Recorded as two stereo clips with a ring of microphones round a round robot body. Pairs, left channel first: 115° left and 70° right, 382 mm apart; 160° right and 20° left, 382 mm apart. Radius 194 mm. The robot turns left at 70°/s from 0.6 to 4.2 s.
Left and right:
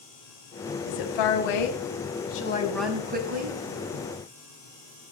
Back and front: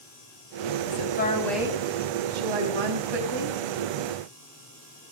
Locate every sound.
0.8 s a woman speaking: 160° left, 5 m; by 3.6 s 30° right, 5 m